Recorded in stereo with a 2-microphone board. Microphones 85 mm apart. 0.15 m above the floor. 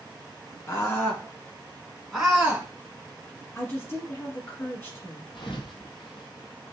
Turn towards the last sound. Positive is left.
turn(degrees=80)